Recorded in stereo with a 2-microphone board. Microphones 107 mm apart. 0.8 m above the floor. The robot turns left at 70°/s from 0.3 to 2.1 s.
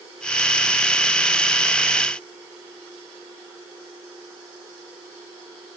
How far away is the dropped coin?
I don't hear a dropped coin.